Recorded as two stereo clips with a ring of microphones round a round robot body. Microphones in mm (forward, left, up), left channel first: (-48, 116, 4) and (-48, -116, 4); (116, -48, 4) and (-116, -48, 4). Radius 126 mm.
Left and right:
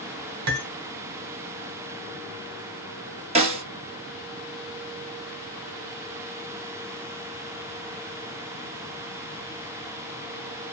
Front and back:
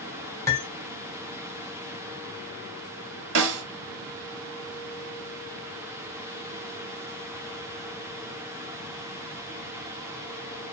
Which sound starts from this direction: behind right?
A snare drum, at 3.4 s.